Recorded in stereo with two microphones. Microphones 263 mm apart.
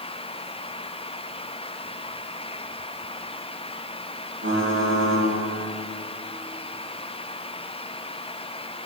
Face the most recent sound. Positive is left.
turn(degrees=-40)  # may be behind; listen again after turning